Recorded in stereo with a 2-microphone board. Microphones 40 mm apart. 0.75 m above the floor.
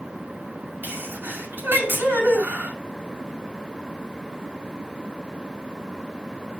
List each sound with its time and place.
0.8 s a sneeze: 60° right (ahead or behind), 5.5 m